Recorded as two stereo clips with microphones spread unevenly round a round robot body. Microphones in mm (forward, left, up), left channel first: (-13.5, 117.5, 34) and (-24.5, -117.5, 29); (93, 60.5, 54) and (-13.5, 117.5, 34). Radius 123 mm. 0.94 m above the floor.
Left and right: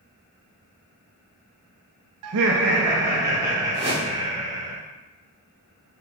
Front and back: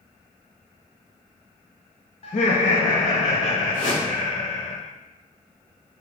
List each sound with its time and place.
2.2 s laughter: 85° right, 0.7 m; by 4.7 s 25° right, 3.5 m
3.7 s a whoosh: 30° right, 3 m